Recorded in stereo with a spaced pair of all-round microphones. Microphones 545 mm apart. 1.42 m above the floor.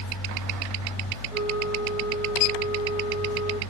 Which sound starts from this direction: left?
A flute, at 1.3 s.